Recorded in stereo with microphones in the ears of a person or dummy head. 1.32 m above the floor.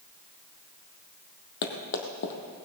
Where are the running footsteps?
50° left (ahead or behind), 2 m.